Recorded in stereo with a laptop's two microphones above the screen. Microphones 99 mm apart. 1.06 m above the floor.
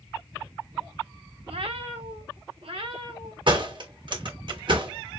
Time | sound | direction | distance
1.5 | a cat meowing | 70° right (ahead or behind) | 1.1 m
3.5 | a door slam | 55° right (ahead or behind) | 2.0 m